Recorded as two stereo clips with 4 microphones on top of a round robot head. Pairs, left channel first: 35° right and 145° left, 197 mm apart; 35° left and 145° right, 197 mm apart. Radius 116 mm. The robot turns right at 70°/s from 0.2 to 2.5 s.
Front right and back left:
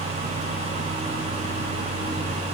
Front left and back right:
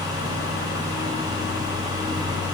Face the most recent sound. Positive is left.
No sound to turn to.